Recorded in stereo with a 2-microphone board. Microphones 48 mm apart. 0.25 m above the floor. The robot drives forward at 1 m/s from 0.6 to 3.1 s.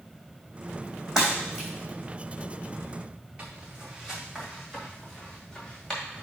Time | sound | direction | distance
1.2 | breaking glass | 10° right (ahead or behind) | 3.5 m
3.4 | footsteps | 25° right (ahead or behind) | 2 m